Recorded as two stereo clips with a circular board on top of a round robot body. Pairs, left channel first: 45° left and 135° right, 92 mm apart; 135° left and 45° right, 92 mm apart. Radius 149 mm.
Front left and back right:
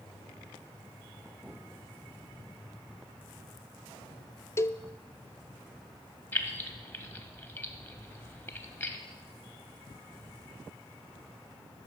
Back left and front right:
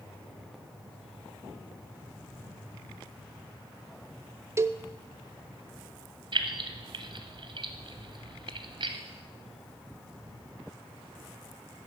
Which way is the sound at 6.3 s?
15° right.